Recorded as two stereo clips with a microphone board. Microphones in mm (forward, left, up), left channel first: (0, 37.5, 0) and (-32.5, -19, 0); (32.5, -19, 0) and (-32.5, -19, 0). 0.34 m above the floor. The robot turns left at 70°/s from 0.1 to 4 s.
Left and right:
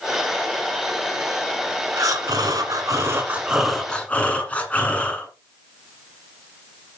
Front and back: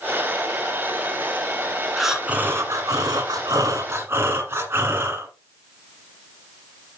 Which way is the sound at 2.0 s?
90° right.